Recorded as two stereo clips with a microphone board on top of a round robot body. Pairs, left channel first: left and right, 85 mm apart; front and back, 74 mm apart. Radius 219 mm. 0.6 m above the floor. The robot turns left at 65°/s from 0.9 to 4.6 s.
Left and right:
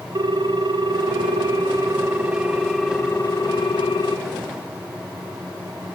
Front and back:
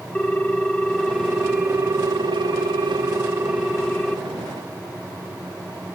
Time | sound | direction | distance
0.1 | a ringtone | 75° right | 1.0 m